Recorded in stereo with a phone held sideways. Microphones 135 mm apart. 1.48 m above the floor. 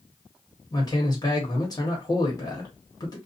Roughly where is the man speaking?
Left.